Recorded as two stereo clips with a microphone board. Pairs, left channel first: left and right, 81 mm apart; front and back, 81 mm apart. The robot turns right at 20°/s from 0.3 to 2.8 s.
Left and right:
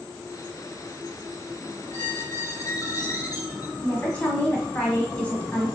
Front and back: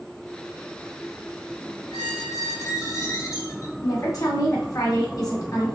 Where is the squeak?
30° left, 2 m; by 3.7 s 50° left, 2 m.